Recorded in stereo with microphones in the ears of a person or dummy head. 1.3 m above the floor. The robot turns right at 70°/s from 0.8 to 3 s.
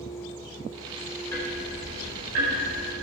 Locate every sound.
1.3 s ticking: 15° left (ahead or behind), 4.5 m; by 3.0 s 80° right, 4.5 m